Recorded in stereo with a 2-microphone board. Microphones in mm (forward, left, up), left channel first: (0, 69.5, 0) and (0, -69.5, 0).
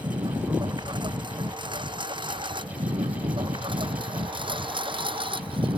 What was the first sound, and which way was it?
A lawn mower, 35° right (ahead or behind).